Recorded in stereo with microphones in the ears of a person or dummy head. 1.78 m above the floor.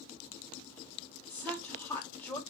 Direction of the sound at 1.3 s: 15° left (ahead or behind).